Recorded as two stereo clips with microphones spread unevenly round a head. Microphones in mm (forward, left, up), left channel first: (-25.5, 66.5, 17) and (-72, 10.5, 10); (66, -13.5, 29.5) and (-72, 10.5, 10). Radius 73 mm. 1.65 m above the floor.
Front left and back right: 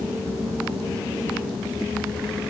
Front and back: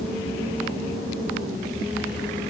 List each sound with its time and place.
Only background noise.